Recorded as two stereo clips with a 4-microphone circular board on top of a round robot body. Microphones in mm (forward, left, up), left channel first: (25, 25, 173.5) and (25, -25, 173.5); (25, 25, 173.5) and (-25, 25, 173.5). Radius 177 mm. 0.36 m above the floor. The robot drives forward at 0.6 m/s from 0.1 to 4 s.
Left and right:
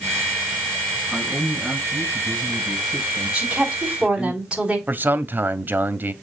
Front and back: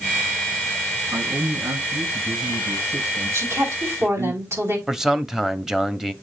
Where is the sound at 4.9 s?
105° right, 1.2 m.